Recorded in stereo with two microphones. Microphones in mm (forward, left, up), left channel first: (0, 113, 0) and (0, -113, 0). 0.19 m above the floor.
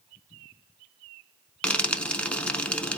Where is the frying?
5° left (ahead or behind), 0.5 m.